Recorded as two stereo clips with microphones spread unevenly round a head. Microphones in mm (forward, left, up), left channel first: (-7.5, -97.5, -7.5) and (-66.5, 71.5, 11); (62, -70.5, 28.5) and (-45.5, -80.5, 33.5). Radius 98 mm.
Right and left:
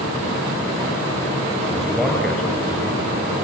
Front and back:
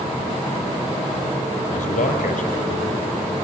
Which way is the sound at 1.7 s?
20° left.